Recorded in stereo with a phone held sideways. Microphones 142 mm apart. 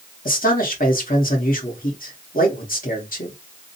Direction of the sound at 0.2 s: 80° left.